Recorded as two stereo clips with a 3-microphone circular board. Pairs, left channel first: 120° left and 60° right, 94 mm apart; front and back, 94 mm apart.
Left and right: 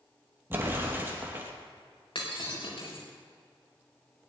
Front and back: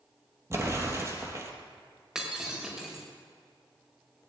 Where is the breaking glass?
95° left, 5 m.